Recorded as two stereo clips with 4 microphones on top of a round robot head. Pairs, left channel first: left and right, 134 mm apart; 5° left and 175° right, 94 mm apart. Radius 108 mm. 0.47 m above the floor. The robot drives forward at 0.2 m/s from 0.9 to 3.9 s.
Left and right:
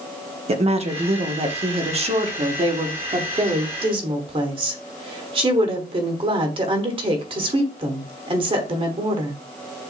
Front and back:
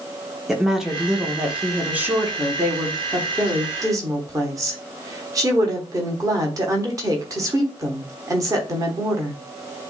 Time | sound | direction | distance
0.5 | a woman speaking | 90° right | 1.0 m